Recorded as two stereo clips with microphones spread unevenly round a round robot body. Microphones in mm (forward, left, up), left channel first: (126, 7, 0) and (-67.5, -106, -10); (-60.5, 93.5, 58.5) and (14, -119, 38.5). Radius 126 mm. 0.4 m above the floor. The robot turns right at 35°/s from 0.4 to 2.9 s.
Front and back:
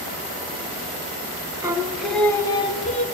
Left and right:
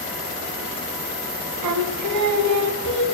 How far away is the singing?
About 0.9 m.